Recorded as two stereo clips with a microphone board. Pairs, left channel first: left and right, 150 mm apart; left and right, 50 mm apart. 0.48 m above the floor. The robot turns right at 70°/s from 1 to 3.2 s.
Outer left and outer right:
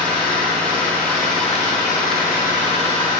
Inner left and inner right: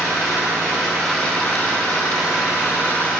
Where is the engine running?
5° left, 4.5 m; by 3.2 s 160° left, 4.5 m.